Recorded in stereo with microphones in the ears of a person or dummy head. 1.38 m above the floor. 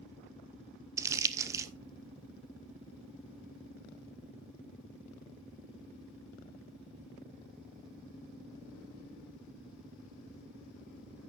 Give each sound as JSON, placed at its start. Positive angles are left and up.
{"t": 1.0, "sound": "crumpling", "side_deg": -15, "distance_m": 0.7}